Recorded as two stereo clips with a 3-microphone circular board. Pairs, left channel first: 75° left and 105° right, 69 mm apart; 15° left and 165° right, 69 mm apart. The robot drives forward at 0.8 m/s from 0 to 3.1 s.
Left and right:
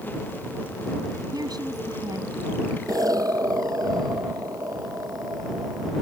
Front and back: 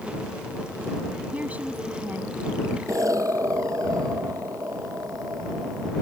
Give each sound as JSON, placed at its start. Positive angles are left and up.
{"t": 1.3, "sound": "a woman speaking", "azimuth_deg": -95}
{"t": 2.9, "sound": "an explosion", "azimuth_deg": -130}